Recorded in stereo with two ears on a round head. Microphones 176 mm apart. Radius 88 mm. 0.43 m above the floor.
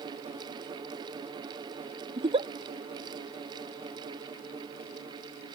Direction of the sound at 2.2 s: 30° right (ahead or behind).